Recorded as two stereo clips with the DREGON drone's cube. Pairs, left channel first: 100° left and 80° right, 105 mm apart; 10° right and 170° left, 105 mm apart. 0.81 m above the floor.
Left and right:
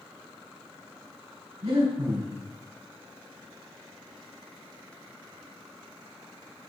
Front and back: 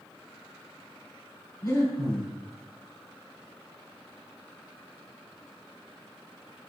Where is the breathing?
65° right, 4.5 m.